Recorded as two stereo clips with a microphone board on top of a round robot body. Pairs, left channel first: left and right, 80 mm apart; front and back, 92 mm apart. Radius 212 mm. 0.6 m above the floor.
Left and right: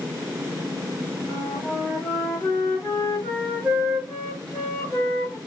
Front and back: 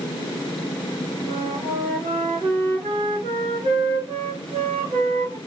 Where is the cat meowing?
I don't hear a cat meowing.